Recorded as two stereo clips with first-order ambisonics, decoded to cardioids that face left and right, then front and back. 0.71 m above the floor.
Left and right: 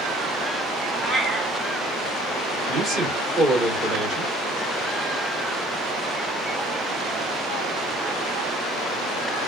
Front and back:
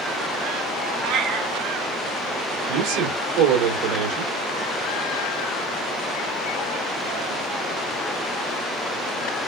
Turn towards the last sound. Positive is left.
turn(degrees=-155)